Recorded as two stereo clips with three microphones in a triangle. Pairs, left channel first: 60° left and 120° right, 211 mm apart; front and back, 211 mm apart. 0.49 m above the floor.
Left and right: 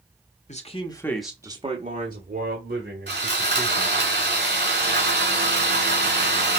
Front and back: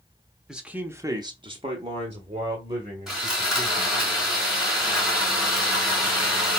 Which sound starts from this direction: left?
A man speaking, at 0.5 s.